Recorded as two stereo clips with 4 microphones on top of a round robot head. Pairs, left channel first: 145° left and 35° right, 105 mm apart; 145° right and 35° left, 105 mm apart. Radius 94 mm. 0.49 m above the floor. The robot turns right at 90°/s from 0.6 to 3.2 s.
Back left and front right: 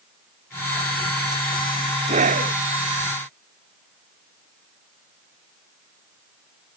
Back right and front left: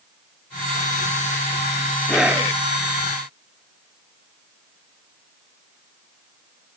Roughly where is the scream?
Ahead right.